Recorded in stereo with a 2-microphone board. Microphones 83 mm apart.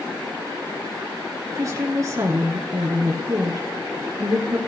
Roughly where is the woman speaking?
Right.